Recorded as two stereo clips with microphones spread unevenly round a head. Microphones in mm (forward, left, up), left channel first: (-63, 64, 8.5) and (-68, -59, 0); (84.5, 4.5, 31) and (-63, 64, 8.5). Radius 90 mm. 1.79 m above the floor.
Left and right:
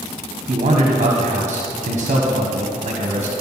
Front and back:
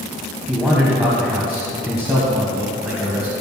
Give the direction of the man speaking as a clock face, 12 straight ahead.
4 o'clock.